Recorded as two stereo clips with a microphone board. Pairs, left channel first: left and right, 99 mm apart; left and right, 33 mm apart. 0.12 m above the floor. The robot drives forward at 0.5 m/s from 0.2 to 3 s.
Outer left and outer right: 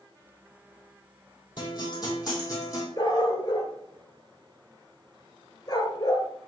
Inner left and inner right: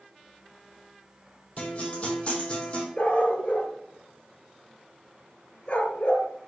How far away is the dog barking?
About 0.9 m.